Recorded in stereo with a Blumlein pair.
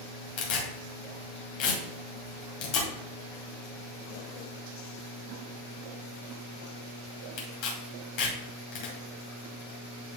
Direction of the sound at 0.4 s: 45° left.